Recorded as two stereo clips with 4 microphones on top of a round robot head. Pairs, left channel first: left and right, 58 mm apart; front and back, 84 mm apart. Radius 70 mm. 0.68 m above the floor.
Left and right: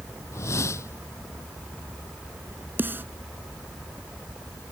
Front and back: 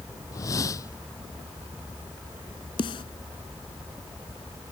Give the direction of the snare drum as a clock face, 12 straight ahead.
1 o'clock.